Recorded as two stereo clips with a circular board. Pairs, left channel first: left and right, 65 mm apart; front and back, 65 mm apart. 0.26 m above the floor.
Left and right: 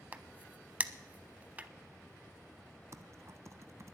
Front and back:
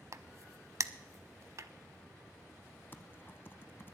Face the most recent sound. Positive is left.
turn(degrees=-55)